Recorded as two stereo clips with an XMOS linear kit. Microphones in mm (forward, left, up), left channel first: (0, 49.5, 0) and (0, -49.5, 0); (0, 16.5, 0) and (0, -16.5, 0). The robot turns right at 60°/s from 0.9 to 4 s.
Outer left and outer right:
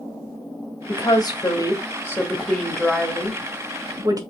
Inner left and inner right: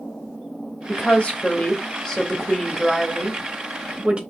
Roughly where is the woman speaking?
Ahead left.